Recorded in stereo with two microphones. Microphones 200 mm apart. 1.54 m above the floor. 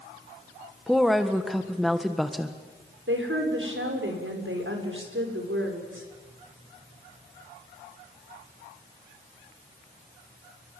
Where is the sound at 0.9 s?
Centre (ahead or behind), 1.5 m.